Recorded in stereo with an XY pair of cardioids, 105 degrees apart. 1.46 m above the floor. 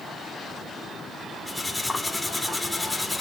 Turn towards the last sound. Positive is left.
turn(degrees=15)